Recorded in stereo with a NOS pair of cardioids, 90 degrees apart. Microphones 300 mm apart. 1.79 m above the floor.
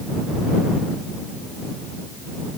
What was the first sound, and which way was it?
Only background noise.